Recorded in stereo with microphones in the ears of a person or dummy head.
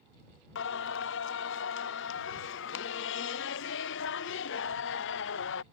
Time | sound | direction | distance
0.6 | singing | 65° left (ahead or behind) | ?